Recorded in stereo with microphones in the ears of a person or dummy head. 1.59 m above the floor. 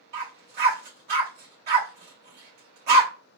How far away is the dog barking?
About 2 m.